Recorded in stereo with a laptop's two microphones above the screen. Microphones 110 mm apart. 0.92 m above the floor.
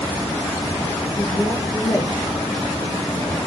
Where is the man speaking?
45° left (ahead or behind), 1.8 m.